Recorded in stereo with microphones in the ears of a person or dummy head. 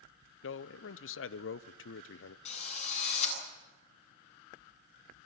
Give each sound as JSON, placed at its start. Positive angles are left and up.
{"t": 0.4, "sound": "a man speaking", "side_deg": 60, "distance_m": 0.7}
{"t": 2.5, "sound": "a drill", "side_deg": 40, "distance_m": 8.5}